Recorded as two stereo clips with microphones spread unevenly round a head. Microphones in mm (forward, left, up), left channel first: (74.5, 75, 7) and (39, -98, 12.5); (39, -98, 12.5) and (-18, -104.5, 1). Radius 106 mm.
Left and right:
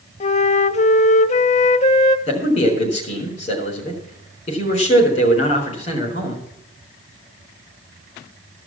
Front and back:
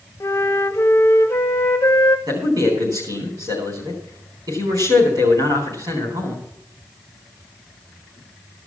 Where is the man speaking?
145° left, 4 m.